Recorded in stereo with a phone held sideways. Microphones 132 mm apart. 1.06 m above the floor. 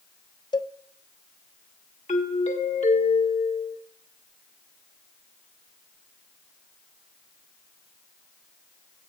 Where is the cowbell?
30° left (ahead or behind), 0.5 m.